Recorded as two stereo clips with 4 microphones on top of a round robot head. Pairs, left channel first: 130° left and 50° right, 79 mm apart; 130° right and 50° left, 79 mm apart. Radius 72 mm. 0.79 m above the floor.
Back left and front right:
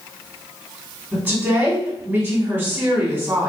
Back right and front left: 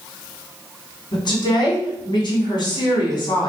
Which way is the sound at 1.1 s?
115° right.